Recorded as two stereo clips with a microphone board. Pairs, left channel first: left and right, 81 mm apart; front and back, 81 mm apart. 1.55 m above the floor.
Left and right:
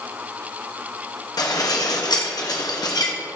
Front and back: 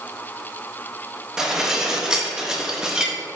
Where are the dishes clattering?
100° left, 1.3 m.